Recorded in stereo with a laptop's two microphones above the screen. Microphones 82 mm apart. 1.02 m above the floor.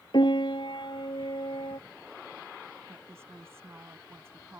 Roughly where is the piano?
Left.